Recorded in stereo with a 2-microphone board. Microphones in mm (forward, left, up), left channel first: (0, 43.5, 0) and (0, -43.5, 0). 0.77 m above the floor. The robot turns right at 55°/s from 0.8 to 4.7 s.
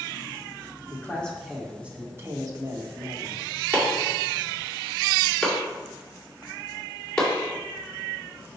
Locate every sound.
0.9 s a man speaking: 145° left, 1.4 m; by 3.5 s 70° right, 1.4 m
3.7 s chopping: 45° right (ahead or behind), 2.5 m; by 7.3 s 10° left (ahead or behind), 2.5 m